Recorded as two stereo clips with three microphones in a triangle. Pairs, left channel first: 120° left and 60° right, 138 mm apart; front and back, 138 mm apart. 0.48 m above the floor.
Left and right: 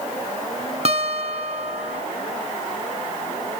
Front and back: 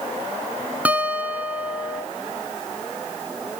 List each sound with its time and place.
0.8 s a guitar: 100° right, 1.2 m